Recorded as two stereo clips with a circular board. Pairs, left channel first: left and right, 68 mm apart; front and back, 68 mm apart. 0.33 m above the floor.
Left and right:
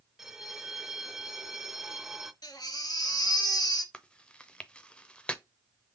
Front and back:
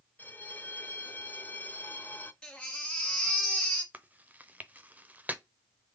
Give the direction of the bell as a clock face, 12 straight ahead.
12 o'clock.